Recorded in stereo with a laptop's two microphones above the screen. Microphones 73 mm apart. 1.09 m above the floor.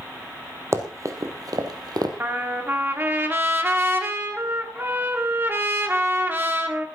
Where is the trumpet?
30° right (ahead or behind), 1.6 m.